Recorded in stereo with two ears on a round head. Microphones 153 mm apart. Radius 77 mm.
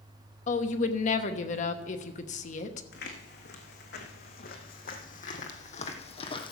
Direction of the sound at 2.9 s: 70° left (ahead or behind).